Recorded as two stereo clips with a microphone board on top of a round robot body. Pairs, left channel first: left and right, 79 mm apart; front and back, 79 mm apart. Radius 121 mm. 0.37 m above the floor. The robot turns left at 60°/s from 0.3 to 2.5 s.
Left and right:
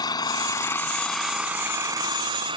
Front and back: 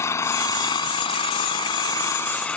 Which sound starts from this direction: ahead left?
An engine running, at 0.0 s.